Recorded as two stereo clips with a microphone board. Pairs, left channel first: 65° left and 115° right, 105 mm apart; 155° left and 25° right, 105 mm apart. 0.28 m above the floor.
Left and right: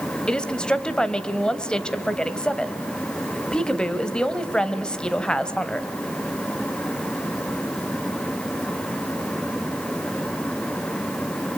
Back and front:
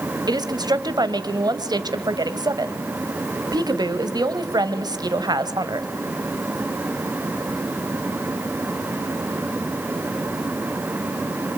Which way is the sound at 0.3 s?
10° right.